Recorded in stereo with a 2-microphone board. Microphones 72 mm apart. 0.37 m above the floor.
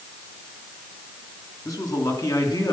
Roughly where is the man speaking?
Left.